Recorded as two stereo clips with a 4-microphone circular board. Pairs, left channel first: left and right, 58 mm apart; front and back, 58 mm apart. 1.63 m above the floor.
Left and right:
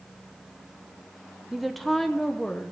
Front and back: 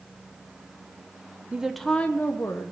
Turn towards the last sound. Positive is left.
turn(degrees=15)